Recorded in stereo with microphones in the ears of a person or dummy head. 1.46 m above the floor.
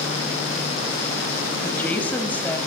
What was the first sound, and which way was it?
A woman speaking, 10° left (ahead or behind).